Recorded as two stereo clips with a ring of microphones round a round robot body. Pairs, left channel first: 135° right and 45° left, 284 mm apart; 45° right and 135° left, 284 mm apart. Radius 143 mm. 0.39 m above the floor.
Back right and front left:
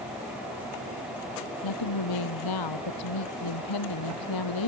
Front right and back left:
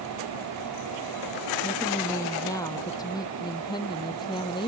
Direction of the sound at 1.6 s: 125° right.